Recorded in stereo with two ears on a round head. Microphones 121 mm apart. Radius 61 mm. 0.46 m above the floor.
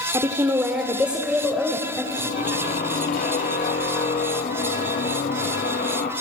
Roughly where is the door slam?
I don't hear a door slam.